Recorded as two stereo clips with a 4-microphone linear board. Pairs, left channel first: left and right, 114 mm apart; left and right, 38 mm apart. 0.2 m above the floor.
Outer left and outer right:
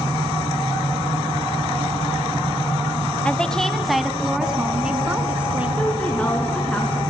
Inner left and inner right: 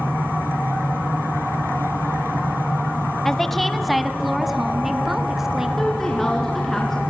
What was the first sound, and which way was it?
A woman speaking, 10° left (ahead or behind).